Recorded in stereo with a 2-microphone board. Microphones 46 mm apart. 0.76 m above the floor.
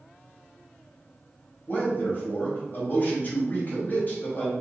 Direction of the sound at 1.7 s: 40° left (ahead or behind).